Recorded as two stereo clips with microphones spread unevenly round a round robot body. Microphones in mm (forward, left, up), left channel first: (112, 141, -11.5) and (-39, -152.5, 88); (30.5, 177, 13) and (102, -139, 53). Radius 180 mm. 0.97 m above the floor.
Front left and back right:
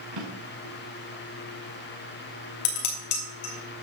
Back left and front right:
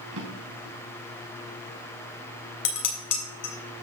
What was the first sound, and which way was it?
A drawer, 120° right.